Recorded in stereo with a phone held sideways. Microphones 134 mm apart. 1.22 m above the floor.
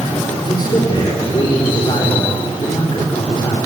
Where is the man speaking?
35° left (ahead or behind), 4 m.